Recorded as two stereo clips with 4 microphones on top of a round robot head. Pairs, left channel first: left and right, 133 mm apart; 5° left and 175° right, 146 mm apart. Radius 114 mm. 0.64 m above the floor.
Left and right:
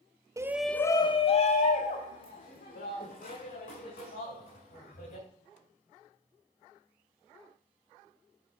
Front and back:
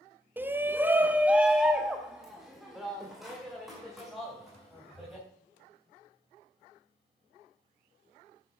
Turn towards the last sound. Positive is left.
turn(degrees=95)